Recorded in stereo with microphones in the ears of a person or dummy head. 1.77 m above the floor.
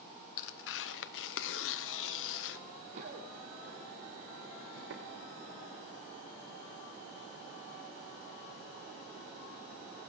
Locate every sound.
0.4 s tearing paper: 65° left (ahead or behind), 0.8 m
2.9 s running footsteps: 45° right (ahead or behind), 4 m; by 5.0 s 65° right (ahead or behind), 4 m